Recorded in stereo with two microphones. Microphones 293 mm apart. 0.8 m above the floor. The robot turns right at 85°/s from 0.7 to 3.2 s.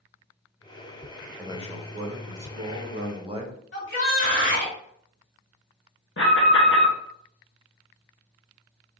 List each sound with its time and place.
1.4 s a man speaking: 175° right, 0.9 m; by 3.6 s 20° right, 0.9 m
3.7 s a shout: 40° left (ahead or behind), 2 m
6.2 s an alarm: 45° left (ahead or behind), 1.1 m